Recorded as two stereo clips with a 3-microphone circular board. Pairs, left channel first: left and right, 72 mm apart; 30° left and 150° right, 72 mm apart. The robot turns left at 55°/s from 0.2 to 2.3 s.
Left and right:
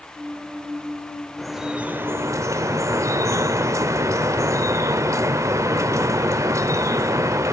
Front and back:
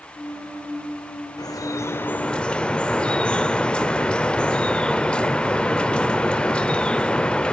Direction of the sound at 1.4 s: 5° left.